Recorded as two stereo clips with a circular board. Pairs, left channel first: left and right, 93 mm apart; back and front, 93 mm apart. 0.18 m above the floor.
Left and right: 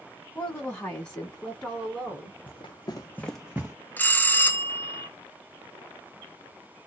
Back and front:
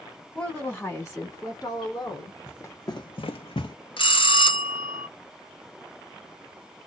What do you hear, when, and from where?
0.3 s a woman speaking: 120° left, 1.0 m; by 2.4 s 175° left, 1.6 m
2.5 s running footsteps: 115° left, 1.0 m; by 3.8 s 150° right, 0.8 m
4.0 s a bell: 160° left, 0.5 m